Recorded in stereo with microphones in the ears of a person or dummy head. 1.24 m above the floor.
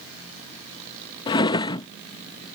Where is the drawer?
25° left (ahead or behind).